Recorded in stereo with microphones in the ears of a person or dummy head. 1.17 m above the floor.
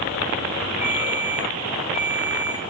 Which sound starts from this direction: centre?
A ringtone, at 0.8 s.